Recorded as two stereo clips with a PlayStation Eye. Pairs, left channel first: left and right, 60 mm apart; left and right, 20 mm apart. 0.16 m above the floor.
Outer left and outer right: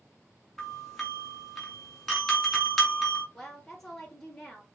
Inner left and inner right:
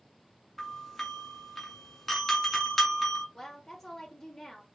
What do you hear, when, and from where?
0.6 s a doorbell: 5° left (ahead or behind), 1.9 m
3.3 s a woman speaking: 5° left (ahead or behind), 3 m